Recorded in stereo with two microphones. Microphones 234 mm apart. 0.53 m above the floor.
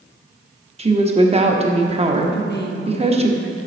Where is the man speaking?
45° left (ahead or behind), 0.9 m.